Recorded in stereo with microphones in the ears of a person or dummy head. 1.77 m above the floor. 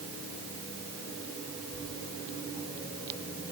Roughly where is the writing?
Left.